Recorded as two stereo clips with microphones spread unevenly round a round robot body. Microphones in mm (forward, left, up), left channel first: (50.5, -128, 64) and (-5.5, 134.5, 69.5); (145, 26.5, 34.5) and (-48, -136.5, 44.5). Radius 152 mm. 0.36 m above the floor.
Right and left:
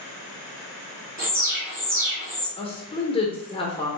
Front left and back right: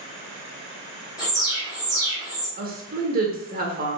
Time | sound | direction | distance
1.2 | an alarm | 95° left | 1.8 m
2.6 | a woman speaking | 130° right | 1.1 m